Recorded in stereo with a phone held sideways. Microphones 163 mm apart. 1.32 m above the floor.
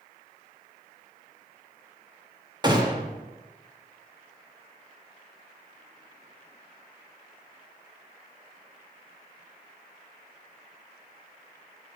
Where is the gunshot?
25° right (ahead or behind), 1.0 m.